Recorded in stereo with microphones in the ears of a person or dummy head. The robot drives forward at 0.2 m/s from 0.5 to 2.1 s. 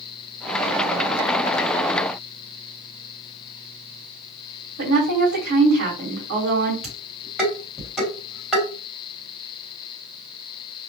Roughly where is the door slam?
No door slam in this recording.